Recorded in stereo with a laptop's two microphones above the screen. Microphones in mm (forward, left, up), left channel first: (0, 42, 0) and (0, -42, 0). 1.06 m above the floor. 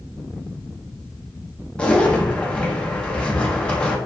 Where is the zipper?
10° left (ahead or behind), 0.6 m.